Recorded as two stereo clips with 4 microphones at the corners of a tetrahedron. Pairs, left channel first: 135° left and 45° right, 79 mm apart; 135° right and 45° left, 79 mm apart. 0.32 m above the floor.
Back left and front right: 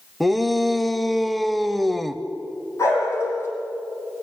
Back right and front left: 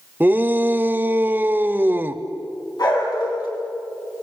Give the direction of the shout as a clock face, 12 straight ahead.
10 o'clock.